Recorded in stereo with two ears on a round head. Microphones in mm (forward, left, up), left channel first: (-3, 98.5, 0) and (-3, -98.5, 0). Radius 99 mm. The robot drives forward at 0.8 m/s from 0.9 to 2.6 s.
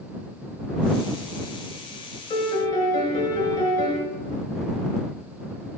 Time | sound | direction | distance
2.3 | a piano | 20° left (ahead or behind) | 1.2 m